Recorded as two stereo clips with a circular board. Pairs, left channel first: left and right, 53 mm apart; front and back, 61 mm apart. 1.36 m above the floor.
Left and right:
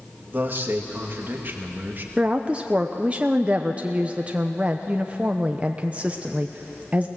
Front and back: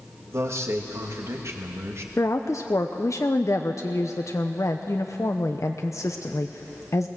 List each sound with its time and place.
0.3 s a man speaking: 140° right, 2.5 m
2.2 s a woman speaking: 25° right, 0.8 m